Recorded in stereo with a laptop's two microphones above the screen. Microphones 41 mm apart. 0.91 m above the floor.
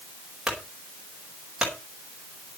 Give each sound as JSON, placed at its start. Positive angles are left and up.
{"t": 0.5, "sound": "a clunk", "side_deg": -10, "distance_m": 4.5}